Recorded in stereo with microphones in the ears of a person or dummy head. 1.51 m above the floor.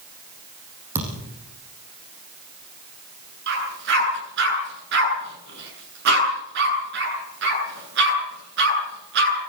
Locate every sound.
0.9 s a thud: 15° right (ahead or behind), 6.5 m
3.5 s a dog barking: 70° right (ahead or behind), 8.5 m